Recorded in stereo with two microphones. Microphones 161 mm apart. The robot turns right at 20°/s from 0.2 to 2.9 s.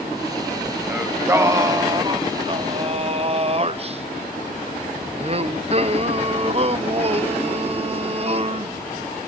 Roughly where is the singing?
Behind.